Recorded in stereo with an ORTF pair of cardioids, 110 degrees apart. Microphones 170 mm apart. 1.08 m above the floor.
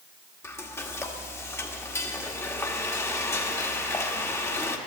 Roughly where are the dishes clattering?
No dishes clattering in this recording.